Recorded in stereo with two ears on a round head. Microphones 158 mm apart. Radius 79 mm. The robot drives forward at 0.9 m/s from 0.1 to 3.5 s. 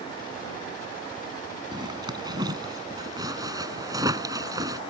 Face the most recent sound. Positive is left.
turn(degrees=-20)  # may be behind; listen again after turning